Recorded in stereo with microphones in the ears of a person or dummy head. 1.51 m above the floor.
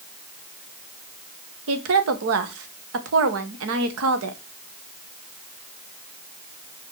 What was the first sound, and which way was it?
A woman speaking, 85° right.